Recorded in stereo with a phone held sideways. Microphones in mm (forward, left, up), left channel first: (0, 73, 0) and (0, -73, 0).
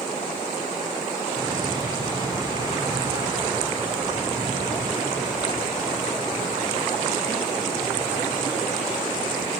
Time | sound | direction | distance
1.4 | an explosion | 30° right (ahead or behind) | 6 m